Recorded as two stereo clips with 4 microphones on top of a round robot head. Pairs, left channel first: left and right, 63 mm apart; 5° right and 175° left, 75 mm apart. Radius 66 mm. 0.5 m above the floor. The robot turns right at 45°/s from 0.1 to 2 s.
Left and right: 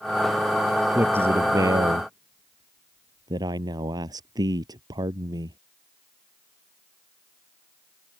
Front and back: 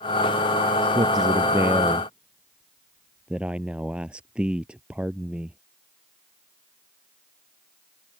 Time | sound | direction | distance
0.9 | a man speaking | 155° right | ?